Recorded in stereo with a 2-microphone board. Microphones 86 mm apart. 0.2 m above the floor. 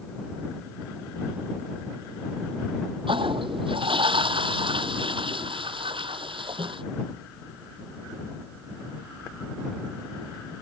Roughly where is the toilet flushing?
Right.